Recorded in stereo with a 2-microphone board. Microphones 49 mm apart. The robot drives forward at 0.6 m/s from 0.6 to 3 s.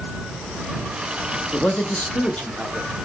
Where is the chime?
I don't hear a chime.